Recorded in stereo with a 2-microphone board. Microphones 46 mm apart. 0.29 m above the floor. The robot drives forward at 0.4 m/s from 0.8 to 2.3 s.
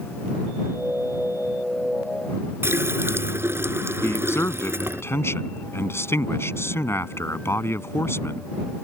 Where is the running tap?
60° right (ahead or behind).